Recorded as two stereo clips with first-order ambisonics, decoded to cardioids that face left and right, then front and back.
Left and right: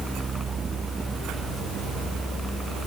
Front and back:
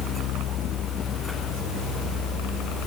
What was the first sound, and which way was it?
Only background noise.